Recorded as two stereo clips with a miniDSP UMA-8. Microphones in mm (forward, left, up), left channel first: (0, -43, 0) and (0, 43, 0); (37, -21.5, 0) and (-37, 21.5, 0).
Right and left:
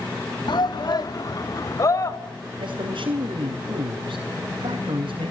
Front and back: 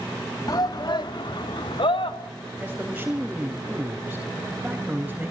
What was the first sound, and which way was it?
A shout, 70° right.